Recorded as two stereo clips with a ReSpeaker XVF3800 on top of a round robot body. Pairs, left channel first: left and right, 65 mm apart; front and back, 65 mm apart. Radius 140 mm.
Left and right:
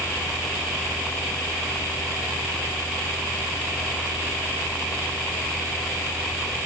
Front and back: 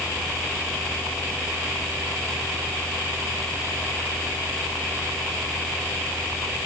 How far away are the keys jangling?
No keys jangling in this recording.